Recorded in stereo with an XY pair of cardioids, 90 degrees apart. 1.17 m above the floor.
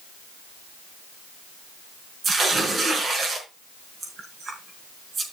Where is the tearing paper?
50° right, 4.5 m.